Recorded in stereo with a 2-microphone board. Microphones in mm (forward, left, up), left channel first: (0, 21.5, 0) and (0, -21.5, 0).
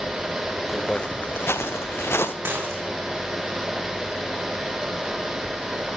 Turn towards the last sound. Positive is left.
turn(degrees=-65)  # may be behind; listen again after turning